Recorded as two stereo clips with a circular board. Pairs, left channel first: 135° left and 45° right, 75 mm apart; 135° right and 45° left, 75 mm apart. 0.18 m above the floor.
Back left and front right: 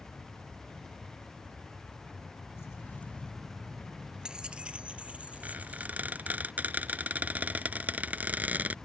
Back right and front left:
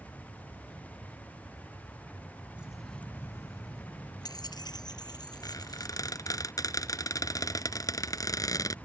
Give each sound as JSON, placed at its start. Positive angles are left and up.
{"t": 2.6, "sound": "keys jangling", "azimuth_deg": 110}
{"t": 5.4, "sound": "a squeak", "azimuth_deg": -110}